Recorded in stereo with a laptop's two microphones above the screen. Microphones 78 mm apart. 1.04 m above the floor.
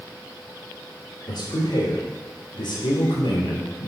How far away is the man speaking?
About 3.5 m.